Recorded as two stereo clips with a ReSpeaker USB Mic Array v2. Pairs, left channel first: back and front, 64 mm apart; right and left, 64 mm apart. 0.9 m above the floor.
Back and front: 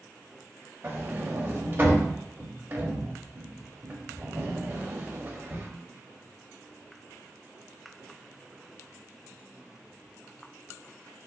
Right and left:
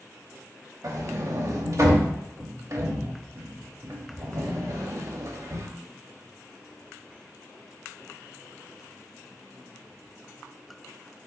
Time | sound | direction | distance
0.8 | a sliding door | 50° left | 0.9 m